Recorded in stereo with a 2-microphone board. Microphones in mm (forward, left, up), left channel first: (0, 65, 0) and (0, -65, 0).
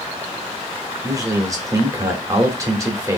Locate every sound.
1.0 s a man speaking: 25° right (ahead or behind), 0.9 m